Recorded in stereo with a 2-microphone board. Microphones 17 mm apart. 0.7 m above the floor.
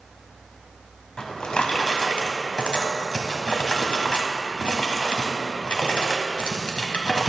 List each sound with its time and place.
1.2 s a drawer: 75° left (ahead or behind), 1.2 m